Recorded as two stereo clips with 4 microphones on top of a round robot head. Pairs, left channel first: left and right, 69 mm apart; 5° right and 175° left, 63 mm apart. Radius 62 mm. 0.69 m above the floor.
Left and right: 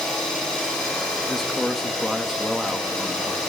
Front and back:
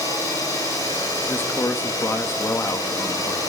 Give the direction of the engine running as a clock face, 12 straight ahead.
12 o'clock.